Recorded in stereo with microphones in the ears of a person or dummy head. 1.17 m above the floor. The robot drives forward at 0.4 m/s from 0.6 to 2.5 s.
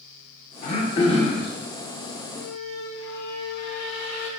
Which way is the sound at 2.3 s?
70° left (ahead or behind).